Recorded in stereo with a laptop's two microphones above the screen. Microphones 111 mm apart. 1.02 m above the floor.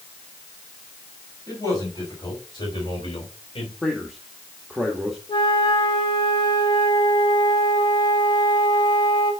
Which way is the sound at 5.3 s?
45° left (ahead or behind).